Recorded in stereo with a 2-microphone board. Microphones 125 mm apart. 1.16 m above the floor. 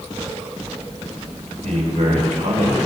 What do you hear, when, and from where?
1.6 s a man speaking: 80° right, 4 m